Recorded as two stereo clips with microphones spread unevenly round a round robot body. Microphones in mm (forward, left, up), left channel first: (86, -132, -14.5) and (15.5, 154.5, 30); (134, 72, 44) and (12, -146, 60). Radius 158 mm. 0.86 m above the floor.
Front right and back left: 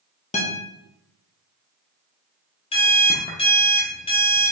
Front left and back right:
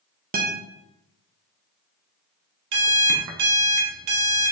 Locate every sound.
0.3 s a guitar: 95° right, 1.0 m
2.7 s an alarm clock: 150° right, 0.7 m